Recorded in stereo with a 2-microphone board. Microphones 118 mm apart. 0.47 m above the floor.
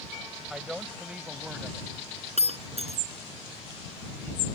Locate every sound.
0.5 s a woman speaking: 5° right (ahead or behind); by 1.9 s 15° right (ahead or behind)
2.4 s breaking glass: 65° right (ahead or behind)